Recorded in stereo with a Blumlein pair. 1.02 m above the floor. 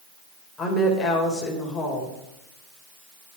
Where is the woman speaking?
15° left, 3.5 m.